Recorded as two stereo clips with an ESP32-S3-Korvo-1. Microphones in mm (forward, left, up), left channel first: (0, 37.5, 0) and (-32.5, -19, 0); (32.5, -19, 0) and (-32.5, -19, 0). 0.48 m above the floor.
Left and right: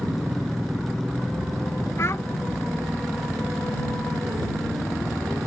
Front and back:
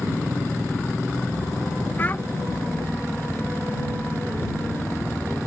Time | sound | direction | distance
2.0 | a child speaking | 50° left | ?